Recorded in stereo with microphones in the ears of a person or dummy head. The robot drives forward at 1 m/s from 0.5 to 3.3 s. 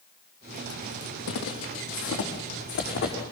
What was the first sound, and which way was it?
Footsteps, 70° left (ahead or behind).